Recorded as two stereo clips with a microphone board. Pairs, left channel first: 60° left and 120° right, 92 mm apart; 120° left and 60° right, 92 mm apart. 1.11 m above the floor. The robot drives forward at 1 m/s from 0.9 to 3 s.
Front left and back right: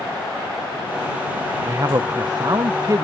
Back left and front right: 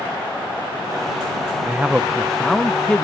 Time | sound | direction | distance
1.7 | a man speaking | 105° right | ?